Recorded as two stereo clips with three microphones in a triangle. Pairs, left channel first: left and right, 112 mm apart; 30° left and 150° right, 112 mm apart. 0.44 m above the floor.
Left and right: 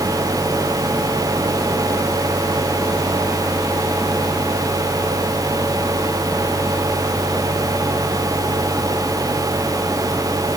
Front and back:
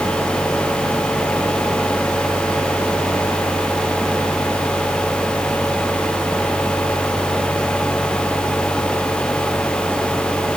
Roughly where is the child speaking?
No child speaking in this recording.